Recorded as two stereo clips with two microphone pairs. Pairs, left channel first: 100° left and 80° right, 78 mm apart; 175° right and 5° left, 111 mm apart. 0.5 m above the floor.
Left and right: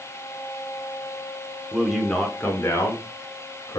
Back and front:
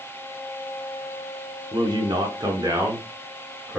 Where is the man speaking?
5° right, 1.0 m; by 3.8 s 70° left, 1.8 m.